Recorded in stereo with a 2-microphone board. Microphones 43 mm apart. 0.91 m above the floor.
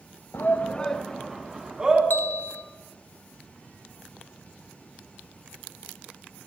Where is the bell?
45° left (ahead or behind), 0.6 m.